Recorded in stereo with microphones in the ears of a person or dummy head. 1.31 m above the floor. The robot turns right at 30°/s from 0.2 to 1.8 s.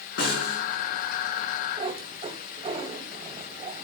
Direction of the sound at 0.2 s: 60° left (ahead or behind).